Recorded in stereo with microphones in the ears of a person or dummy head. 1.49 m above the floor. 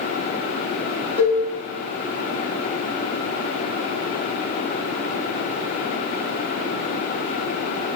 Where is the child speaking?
I don't hear a child speaking.